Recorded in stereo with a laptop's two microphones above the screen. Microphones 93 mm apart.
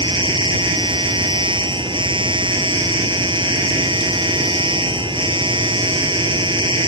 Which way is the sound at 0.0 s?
55° right (ahead or behind).